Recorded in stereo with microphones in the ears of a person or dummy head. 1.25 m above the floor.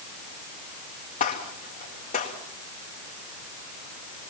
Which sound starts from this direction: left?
A gunshot, at 1.2 s.